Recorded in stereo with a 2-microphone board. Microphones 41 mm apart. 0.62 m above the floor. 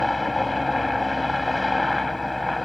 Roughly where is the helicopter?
Centre.